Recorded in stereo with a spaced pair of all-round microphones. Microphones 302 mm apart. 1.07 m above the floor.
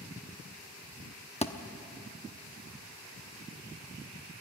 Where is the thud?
20° left (ahead or behind), 0.8 m.